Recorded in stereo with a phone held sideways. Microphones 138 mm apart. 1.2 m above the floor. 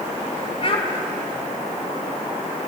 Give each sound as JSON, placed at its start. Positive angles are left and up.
{"t": 0.6, "sound": "a child speaking", "side_deg": 45, "distance_m": 3.5}